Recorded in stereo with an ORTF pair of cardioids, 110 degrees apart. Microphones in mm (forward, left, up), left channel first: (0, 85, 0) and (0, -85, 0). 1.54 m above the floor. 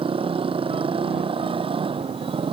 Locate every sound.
0.0 s a motorcycle: 30° right